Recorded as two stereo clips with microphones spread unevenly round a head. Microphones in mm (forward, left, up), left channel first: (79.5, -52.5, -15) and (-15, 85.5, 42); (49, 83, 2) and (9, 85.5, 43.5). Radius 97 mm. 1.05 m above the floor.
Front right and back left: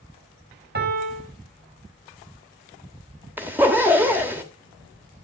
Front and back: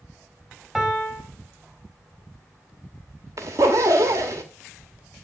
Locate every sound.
0.8 s a piano: 100° left, 4.5 m
3.4 s a zipper: 155° right, 1.3 m